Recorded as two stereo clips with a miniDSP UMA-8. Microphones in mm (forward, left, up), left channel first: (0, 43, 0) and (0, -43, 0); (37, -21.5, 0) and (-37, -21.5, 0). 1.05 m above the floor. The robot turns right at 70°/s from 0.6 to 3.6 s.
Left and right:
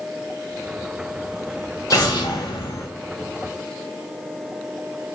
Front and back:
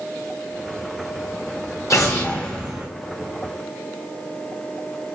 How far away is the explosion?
About 1.0 m.